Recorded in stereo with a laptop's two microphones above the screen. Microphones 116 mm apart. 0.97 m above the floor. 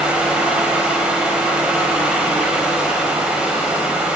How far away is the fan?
About 1.1 m.